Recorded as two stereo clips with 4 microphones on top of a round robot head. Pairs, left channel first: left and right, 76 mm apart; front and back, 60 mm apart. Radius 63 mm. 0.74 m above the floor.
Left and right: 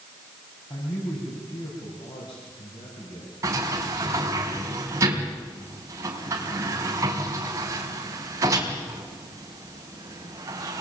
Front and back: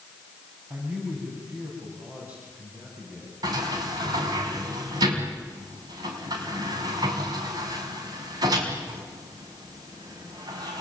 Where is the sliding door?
150° right, 4 m.